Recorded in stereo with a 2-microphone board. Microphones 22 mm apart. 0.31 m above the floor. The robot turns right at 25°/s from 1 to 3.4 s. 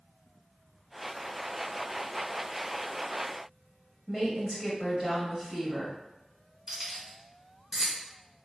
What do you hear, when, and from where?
4.1 s a woman speaking: 5° right (ahead or behind), 1.2 m
6.7 s keys jangling: 10° right (ahead or behind), 1.3 m